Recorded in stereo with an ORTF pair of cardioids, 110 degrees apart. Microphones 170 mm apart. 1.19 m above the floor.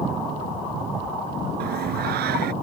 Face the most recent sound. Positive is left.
turn(degrees=-70)